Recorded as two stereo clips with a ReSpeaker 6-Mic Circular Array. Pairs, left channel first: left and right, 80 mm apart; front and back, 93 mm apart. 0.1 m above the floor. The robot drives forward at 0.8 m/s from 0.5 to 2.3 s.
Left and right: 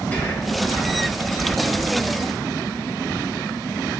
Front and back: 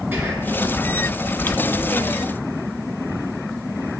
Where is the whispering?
130° left, 1.5 m.